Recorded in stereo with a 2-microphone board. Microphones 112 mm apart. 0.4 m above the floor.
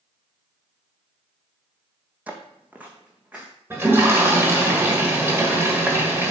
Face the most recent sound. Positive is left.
turn(degrees=-20)  # may be behind; listen again after turning